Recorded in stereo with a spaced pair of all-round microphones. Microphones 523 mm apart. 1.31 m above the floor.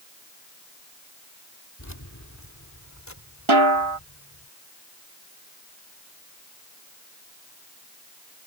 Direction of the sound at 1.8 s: 35° left (ahead or behind).